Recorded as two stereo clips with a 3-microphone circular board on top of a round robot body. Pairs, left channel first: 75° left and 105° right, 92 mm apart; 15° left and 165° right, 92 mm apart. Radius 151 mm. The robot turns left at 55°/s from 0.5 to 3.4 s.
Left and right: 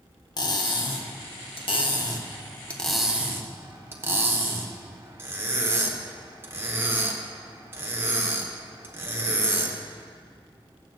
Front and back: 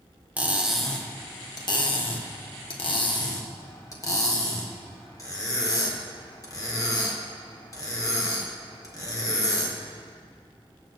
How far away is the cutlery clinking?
About 1.4 m.